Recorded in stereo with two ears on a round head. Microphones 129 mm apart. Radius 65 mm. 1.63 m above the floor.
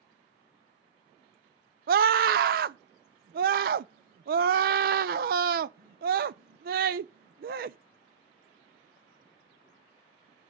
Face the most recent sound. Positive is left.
turn(degrees=-65)  # may be behind; listen again after turning